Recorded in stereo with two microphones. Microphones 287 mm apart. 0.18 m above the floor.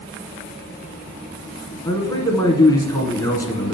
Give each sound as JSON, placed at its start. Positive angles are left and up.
{"t": 1.9, "sound": "a man speaking", "side_deg": 10, "distance_m": 1.6}